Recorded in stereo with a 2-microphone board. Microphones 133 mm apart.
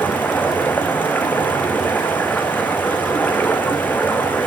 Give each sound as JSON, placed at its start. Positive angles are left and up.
{"t": 0.0, "sound": "running water", "side_deg": 15, "distance_m": 2.5}